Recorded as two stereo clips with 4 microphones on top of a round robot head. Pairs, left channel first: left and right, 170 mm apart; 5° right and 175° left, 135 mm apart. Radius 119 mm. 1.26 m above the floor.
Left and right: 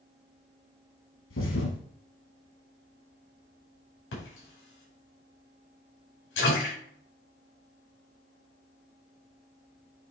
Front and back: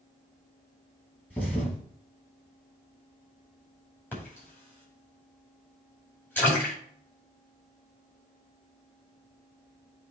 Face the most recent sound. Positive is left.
turn(degrees=70)